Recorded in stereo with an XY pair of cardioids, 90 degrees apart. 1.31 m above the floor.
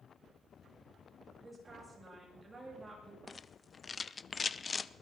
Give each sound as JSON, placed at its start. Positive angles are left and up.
{"t": 1.4, "sound": "a woman speaking", "azimuth_deg": -20, "distance_m": 8.0}
{"t": 3.3, "sound": "a rattle", "azimuth_deg": 35, "distance_m": 0.5}